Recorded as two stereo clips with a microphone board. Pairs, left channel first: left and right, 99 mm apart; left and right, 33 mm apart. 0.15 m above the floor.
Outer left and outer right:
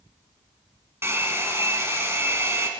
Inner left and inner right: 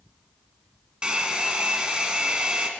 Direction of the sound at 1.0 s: 25° right (ahead or behind).